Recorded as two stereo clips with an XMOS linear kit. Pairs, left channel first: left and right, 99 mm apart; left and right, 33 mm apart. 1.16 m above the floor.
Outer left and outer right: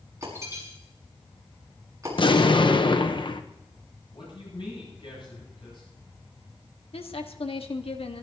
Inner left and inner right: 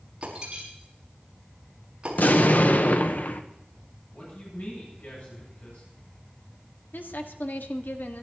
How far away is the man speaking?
About 10 m.